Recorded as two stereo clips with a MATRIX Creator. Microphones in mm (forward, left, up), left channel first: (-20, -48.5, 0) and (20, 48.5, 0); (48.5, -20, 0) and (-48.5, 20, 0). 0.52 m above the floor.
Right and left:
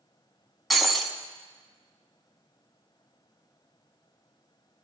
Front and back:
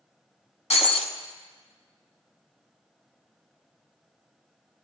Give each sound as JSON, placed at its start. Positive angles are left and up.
{"t": 0.7, "sound": "breaking glass", "azimuth_deg": -25, "distance_m": 1.2}